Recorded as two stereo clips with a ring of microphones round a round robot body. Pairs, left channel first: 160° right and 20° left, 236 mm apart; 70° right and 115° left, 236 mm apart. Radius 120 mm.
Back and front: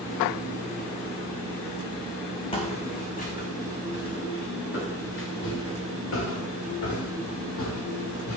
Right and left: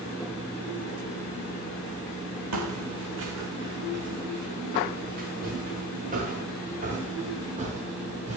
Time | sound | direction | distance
2.5 | footsteps | 135° left | 2.5 m